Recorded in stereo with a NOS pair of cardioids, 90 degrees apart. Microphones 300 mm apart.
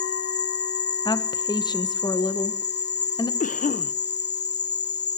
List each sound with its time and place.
0.0 s an insect: 35° left, 1.6 m
1.1 s a woman speaking: 15° left, 1.5 m
3.4 s a cough: 25° left, 1.2 m